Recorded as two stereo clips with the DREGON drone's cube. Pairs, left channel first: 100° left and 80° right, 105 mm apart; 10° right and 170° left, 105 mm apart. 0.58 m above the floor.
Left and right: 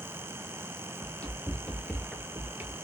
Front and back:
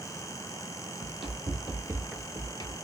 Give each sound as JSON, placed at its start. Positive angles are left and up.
{"t": 1.0, "sound": "running footsteps", "azimuth_deg": 175, "distance_m": 1.5}